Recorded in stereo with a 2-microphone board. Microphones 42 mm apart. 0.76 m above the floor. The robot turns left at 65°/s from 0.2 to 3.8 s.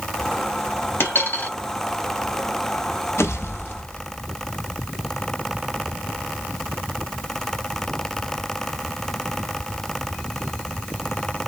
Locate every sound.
1.0 s a dropped coin: 85° left, 1.3 m; by 1.5 s 50° left, 1.3 m
3.2 s a pop: 95° left, 0.8 m; by 4.1 s 50° left, 0.8 m